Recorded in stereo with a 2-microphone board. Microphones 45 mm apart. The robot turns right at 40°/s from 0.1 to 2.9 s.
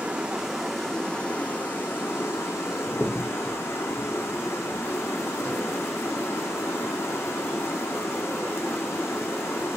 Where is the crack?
25° left (ahead or behind), 1.3 m.